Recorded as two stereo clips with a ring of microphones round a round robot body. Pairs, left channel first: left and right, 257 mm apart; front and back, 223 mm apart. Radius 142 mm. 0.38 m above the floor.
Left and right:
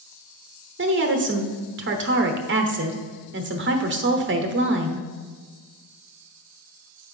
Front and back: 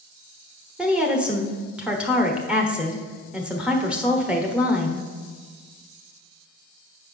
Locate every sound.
0.8 s a woman speaking: 95° right, 1.2 m